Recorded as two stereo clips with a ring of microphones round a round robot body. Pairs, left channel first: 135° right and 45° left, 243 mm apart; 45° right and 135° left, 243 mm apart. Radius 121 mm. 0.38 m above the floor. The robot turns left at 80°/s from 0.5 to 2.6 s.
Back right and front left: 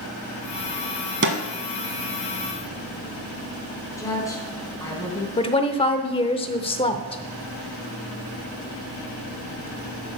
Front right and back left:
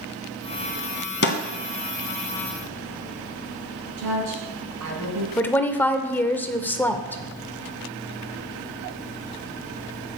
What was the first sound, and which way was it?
A snare drum, straight ahead.